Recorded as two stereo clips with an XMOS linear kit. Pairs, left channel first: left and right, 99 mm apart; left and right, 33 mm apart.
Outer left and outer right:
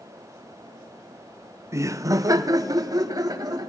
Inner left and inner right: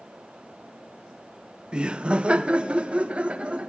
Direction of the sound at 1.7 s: 30° right (ahead or behind).